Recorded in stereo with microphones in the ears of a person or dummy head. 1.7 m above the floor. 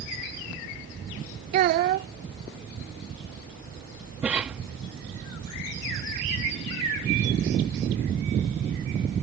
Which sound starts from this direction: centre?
A cough, at 4.2 s.